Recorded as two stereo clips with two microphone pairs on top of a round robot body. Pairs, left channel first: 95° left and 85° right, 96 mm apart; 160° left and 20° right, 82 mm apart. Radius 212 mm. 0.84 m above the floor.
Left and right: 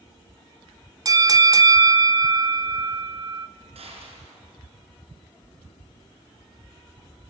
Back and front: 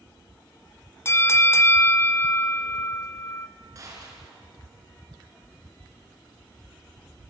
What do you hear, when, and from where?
1.1 s a bell: 140° right, 0.6 m
3.8 s a gunshot: 70° right, 5.5 m